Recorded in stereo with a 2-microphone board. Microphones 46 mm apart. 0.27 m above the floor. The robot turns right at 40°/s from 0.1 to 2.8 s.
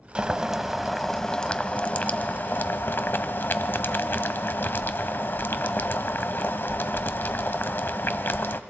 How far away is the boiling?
About 0.6 m.